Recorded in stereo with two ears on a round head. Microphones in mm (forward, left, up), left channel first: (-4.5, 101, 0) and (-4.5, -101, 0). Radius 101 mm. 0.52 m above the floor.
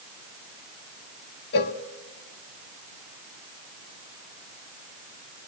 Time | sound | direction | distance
1.5 | a cowbell | 45° left (ahead or behind) | 1.0 m